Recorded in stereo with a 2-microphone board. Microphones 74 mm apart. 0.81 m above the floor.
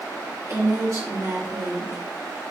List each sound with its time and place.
0.5 s a woman speaking: 45° right (ahead or behind), 3.5 m